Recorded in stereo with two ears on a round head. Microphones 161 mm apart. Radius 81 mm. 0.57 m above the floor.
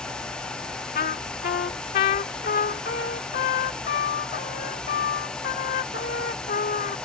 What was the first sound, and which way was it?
A trumpet, 50° left (ahead or behind).